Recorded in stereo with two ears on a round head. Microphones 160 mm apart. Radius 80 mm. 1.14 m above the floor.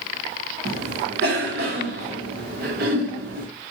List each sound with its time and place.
0.7 s a cough: 60° right (ahead or behind), 1.2 m